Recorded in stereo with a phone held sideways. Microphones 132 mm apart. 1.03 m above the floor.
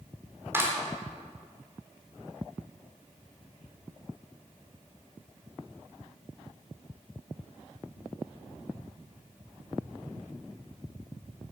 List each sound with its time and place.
0.5 s a clap: 20° right (ahead or behind), 3 m